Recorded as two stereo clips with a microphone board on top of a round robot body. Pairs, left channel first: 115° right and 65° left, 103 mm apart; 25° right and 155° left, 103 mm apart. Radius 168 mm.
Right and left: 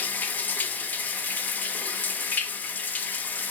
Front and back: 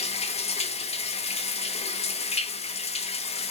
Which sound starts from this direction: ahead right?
Running water, at 0.0 s.